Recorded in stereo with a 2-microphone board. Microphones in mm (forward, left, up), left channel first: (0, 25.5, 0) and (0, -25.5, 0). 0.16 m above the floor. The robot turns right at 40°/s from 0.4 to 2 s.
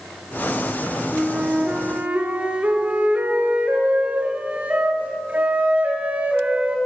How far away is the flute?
About 1.1 m.